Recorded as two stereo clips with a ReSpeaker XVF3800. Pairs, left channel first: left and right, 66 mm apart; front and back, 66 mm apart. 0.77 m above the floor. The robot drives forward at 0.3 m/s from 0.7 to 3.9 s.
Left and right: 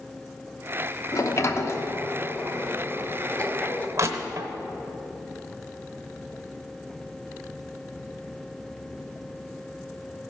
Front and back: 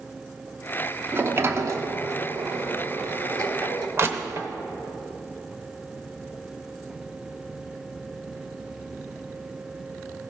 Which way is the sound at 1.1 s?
125° left.